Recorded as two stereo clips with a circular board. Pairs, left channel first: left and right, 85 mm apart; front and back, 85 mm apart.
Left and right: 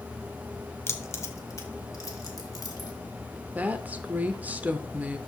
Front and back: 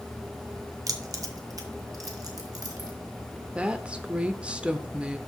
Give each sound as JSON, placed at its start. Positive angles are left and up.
{"t": 0.9, "sound": "keys jangling", "azimuth_deg": 145, "distance_m": 0.9}
{"t": 3.5, "sound": "a woman speaking", "azimuth_deg": -125, "distance_m": 0.8}